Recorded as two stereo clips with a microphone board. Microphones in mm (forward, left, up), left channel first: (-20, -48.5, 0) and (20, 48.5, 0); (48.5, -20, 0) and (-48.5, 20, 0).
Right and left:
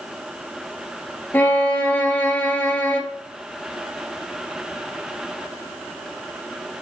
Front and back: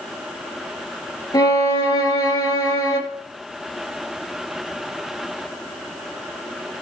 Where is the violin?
50° right, 1.8 m.